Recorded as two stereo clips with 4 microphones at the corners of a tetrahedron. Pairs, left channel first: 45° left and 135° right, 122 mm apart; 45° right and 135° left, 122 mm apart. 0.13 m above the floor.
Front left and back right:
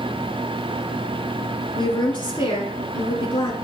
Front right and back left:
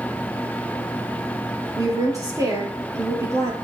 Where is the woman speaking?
80° left, 2.5 m.